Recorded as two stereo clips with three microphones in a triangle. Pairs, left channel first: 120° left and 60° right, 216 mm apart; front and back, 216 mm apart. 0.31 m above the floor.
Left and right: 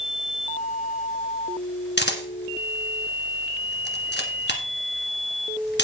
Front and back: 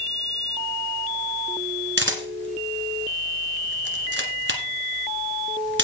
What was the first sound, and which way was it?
A camera shutter, 155° left.